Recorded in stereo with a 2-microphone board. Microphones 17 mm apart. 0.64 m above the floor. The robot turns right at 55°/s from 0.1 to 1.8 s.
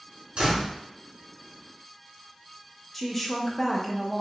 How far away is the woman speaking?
About 0.6 m.